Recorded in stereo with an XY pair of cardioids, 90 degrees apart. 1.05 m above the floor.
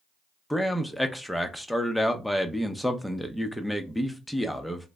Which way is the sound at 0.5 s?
5° left.